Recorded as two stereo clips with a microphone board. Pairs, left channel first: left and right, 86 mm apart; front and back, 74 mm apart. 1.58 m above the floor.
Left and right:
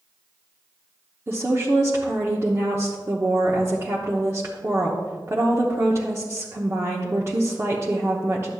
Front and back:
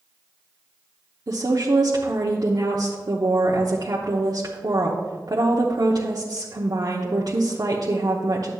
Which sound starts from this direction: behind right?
A woman speaking, at 1.3 s.